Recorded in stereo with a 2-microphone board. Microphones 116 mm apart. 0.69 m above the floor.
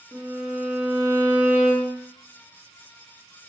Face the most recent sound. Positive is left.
turn(degrees=-15)  # may be behind; listen again after turning